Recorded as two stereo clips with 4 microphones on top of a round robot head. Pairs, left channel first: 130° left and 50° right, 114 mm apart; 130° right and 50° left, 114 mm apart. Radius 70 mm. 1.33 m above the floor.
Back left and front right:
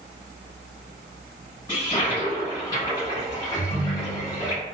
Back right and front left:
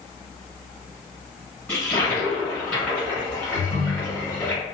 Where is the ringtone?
45° left, 1.5 m.